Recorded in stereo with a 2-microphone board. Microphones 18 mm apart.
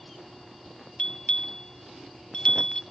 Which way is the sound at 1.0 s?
55° left (ahead or behind).